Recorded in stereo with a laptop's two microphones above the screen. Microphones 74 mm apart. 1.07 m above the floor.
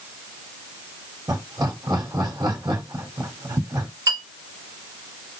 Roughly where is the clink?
Right.